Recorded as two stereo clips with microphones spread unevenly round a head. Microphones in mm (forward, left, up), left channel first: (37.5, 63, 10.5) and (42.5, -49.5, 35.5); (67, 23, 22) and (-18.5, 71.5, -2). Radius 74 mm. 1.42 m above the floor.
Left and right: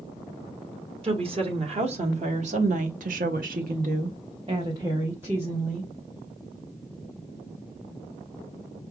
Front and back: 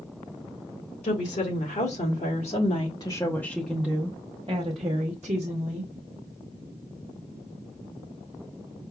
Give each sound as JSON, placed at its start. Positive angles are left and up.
{"t": 1.0, "sound": "a woman speaking", "azimuth_deg": -50, "distance_m": 1.6}